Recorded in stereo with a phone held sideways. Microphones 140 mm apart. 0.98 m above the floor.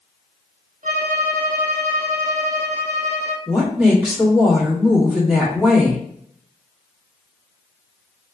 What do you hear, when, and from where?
0.8 s a violin: 60° right (ahead or behind), 0.5 m
3.5 s a woman speaking: 5° right (ahead or behind), 1.5 m